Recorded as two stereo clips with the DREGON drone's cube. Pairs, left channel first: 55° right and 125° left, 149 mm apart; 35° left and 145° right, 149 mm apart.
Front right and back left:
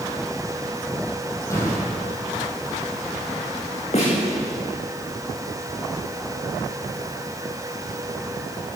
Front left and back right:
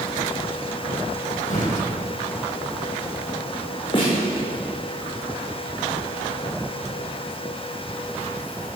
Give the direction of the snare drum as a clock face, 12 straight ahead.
1 o'clock.